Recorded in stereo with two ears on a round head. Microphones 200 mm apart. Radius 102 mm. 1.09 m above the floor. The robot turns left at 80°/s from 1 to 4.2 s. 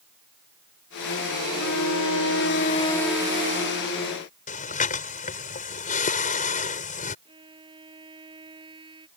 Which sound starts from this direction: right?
A violin, at 7.2 s.